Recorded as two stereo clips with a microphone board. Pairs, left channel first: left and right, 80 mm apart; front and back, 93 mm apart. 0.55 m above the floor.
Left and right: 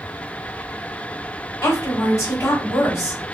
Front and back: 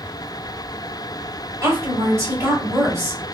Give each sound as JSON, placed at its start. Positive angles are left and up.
{"t": 1.6, "sound": "a woman speaking", "azimuth_deg": 130, "distance_m": 2.0}